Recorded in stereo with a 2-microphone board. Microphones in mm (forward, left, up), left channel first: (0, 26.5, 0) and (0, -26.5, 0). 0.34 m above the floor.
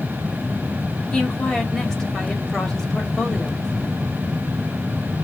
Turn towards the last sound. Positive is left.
turn(degrees=10)  # may be behind; listen again after turning